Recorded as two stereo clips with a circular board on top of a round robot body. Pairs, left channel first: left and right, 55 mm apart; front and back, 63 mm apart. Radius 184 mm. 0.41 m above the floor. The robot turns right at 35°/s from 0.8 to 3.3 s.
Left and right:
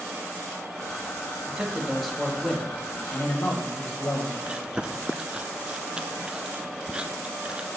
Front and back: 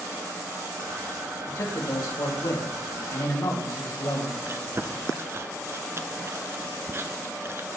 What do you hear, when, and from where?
1.5 s a man speaking: 20° right, 2.5 m; by 4.3 s 45° left, 2.5 m
4.5 s chewing: 155° right, 0.8 m